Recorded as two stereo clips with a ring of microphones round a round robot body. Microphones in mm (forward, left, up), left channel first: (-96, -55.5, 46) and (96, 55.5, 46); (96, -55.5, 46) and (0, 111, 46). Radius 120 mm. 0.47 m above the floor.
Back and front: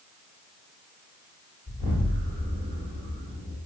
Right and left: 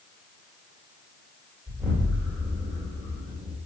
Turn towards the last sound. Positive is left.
turn(degrees=40)